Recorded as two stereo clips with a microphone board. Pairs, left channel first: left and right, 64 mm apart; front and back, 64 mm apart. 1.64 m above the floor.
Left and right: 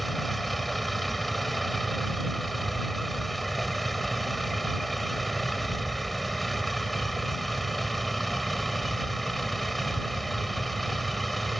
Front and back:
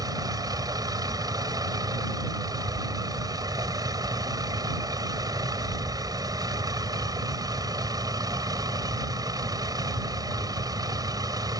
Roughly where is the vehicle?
Behind.